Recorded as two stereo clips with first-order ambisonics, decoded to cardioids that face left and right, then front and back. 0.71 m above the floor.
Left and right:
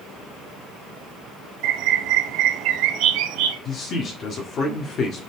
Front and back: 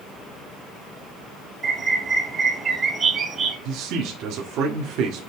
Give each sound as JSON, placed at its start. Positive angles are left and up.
{"t": 1.6, "sound": "a bird", "azimuth_deg": -110, "distance_m": 1.3}
{"t": 3.6, "sound": "a man speaking", "azimuth_deg": 145, "distance_m": 1.3}